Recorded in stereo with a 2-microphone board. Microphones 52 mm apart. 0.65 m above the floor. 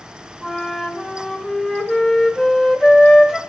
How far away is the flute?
About 1.1 m.